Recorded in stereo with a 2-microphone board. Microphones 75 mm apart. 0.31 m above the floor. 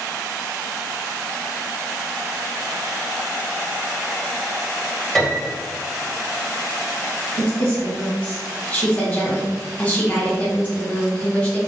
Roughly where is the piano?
Centre.